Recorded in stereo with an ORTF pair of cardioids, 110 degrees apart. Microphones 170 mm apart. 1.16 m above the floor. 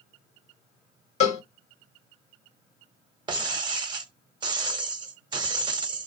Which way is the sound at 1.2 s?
45° left.